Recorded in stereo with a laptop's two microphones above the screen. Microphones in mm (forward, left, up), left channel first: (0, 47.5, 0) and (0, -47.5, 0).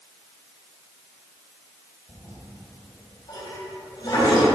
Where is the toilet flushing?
45° left (ahead or behind), 2.5 m.